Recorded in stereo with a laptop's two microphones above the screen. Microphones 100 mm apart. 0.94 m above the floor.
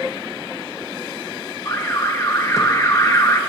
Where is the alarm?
30° left (ahead or behind), 0.7 m.